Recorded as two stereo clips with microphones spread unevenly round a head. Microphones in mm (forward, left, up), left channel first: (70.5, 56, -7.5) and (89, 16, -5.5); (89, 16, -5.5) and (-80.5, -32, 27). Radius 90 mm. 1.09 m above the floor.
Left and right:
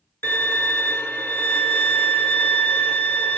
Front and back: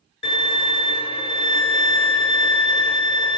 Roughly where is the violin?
Left.